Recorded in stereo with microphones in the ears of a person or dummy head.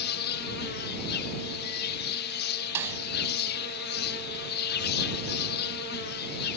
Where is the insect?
55° left (ahead or behind).